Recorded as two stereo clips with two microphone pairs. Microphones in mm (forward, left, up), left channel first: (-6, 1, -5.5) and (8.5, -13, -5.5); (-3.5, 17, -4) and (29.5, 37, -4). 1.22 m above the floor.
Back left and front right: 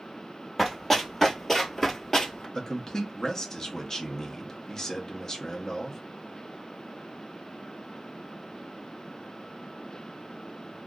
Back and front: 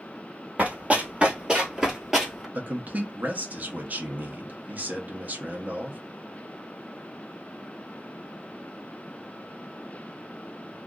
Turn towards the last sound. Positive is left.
turn(degrees=75)